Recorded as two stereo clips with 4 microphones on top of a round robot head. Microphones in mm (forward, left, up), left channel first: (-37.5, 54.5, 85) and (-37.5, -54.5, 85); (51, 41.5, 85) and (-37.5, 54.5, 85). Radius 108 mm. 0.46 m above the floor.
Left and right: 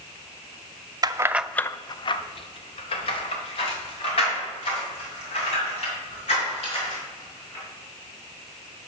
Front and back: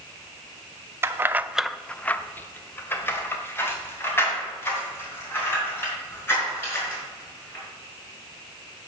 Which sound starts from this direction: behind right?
Keys jangling, at 1.0 s.